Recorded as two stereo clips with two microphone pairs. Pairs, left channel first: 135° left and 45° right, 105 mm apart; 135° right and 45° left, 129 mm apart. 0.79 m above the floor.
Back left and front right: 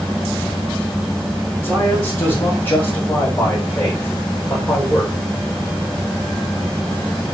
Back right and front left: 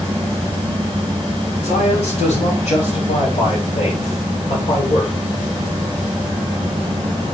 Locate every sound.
1.6 s a man speaking: 155° right, 5 m; by 5.1 s 150° right, 3 m